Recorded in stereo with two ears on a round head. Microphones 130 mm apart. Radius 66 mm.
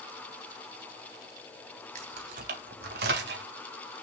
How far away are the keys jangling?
About 2 m.